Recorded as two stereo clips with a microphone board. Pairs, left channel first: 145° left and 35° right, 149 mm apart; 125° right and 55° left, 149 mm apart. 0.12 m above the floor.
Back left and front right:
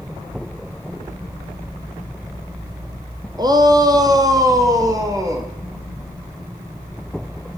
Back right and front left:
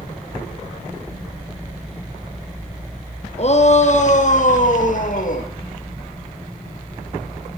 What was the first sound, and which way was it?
A shout, 95° right.